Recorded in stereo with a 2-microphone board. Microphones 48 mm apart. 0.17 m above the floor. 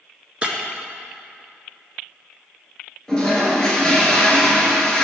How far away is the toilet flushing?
About 1.5 m.